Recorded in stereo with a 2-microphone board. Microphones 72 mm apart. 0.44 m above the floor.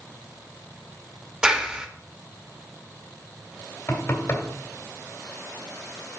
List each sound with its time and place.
1.4 s a clap: 10° right (ahead or behind), 0.9 m
3.9 s knocking: 40° left (ahead or behind), 1.7 m